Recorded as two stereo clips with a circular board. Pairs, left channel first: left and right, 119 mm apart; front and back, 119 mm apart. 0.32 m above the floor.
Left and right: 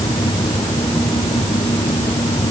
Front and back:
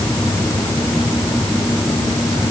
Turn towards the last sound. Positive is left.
No sound to turn to.